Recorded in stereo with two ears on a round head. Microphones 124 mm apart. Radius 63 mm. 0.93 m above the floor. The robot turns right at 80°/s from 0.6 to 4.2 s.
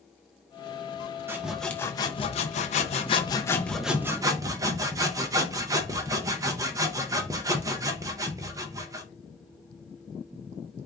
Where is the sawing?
20° right, 0.5 m; by 9.0 s 150° right, 0.5 m.